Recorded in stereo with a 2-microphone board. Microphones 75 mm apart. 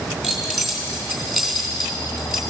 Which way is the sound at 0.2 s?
5° left (ahead or behind).